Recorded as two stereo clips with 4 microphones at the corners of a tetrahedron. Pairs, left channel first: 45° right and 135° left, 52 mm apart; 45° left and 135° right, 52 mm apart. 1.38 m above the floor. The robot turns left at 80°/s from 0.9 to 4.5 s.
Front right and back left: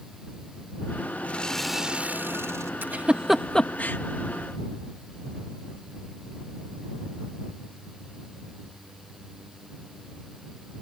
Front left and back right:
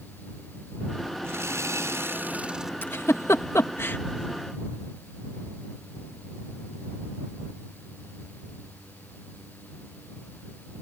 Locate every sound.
1.2 s sawing: 100° right; by 2.7 s 140° left
2.8 s a giggle: 90° left; by 4.0 s straight ahead